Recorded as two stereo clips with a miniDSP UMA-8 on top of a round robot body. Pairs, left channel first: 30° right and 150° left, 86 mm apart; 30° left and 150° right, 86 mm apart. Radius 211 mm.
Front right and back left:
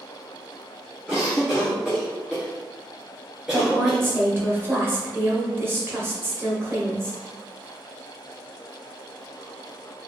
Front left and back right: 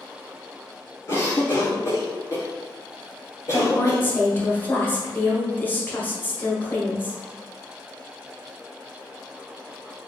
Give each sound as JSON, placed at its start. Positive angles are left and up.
{"t": 1.1, "sound": "a cough", "azimuth_deg": 70, "distance_m": 1.8}
{"t": 3.5, "sound": "a woman speaking", "azimuth_deg": 95, "distance_m": 1.4}